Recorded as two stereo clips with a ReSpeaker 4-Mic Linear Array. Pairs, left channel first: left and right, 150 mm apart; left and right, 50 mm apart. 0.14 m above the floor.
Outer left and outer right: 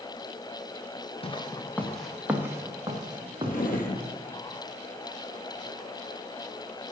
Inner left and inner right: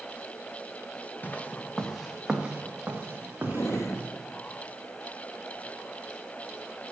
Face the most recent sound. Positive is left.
turn(degrees=75)  # may be behind; listen again after turning